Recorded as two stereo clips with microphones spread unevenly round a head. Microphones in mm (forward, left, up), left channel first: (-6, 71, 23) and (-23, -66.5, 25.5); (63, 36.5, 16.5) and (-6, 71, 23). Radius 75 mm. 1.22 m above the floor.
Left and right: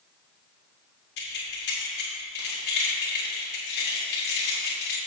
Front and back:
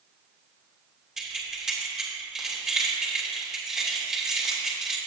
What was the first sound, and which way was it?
Keys jangling, 70° left.